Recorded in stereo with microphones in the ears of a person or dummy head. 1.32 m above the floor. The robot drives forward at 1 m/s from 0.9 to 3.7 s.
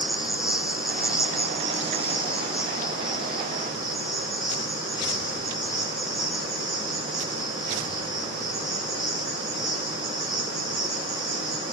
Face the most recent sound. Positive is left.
turn(degrees=0)  # may be behind; listen again after turning